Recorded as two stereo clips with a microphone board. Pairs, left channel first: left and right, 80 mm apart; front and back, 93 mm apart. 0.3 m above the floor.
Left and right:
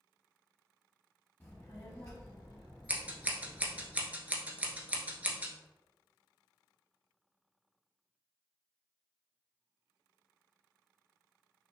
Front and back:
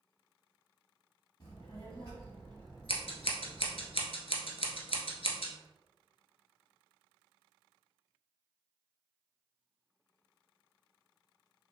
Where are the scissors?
15° right, 0.9 m.